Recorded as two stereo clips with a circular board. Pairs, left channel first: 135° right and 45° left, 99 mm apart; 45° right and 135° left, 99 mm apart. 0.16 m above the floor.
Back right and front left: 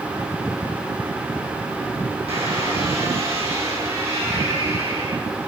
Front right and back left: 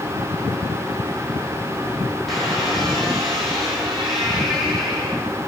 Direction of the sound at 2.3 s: 45° left.